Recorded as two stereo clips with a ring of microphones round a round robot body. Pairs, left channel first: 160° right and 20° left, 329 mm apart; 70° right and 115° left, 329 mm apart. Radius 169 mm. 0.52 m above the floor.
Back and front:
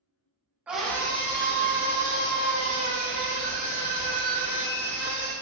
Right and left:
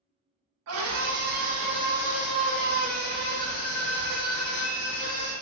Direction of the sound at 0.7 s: 105° left.